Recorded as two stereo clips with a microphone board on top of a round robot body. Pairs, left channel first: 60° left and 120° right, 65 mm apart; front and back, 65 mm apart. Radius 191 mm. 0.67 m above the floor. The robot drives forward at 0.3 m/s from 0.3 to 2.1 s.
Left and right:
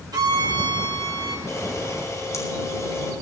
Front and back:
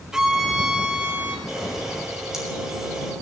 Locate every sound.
0.1 s a violin: 100° right, 1.8 m; by 1.4 s 110° right, 1.9 m
1.5 s a camera shutter: 100° left, 6.5 m